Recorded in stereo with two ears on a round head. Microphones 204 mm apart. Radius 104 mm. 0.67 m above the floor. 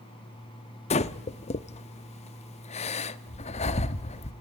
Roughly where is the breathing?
Left.